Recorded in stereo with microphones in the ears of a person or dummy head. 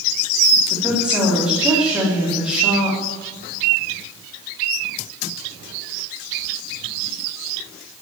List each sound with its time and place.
0.7 s a woman speaking: 10° right (ahead or behind), 3.5 m